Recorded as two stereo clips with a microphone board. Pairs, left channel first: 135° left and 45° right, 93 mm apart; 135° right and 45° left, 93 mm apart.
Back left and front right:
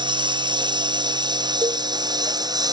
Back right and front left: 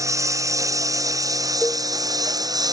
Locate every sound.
0.0 s a lawn mower: 10° right; by 2.7 s straight ahead
1.6 s a cowbell: 70° right